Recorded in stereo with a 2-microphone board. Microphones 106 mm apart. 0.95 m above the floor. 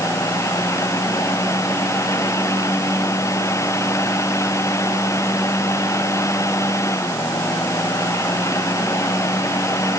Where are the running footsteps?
I don't hear running footsteps.